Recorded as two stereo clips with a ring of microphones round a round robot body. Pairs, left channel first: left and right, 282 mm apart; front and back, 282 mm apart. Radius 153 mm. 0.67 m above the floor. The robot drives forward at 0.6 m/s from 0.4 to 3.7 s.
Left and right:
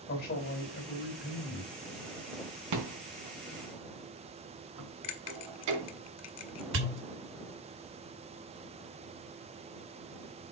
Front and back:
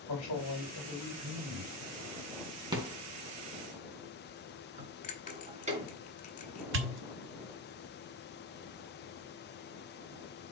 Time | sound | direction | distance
0.1 | a man speaking | 40° left | 3.5 m
2.7 | a rattle | 105° right | 3.5 m
5.0 | a bell | 65° left | 1.3 m
6.7 | a pop | 140° right | 1.3 m